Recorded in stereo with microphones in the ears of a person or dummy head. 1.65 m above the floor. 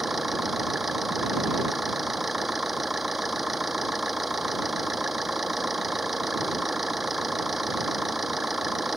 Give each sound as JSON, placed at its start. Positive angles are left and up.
{"t": 0.0, "sound": "an engine running", "side_deg": -5}